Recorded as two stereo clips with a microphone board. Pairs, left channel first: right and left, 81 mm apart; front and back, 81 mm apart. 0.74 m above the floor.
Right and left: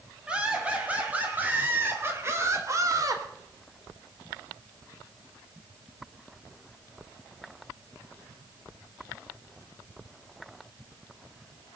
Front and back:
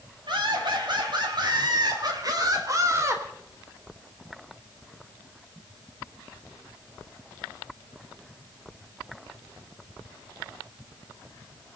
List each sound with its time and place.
0.3 s laughter: 165° left, 5.5 m; by 3.2 s 125° left, 2.5 m